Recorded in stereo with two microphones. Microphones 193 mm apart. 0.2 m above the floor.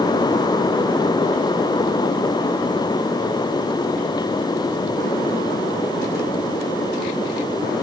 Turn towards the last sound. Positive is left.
No sound to turn to.